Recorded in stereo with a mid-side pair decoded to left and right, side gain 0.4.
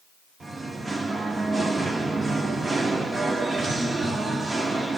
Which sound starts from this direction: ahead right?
Singing, at 0.4 s.